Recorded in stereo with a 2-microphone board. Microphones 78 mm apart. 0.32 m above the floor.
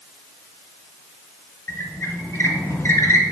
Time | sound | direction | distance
1.7 | a squeak | 35° left (ahead or behind) | 1.0 m